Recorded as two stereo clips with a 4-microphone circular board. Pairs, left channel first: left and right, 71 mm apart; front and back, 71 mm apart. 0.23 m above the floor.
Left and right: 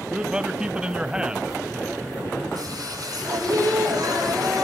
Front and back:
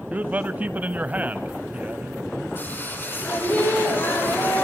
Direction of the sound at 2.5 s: 60° right.